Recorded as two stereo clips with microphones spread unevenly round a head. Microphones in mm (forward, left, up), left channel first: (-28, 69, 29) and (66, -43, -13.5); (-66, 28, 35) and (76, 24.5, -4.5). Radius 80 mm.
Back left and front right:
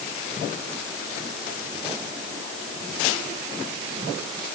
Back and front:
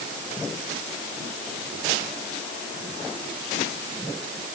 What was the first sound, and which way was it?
Only background noise.